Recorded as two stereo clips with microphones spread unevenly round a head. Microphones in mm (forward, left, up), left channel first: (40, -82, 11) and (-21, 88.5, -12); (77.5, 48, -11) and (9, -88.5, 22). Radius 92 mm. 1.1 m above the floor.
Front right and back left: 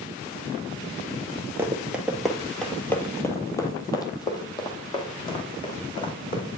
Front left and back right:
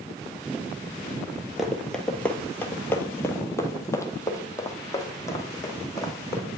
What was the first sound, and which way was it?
Running footsteps, 170° right.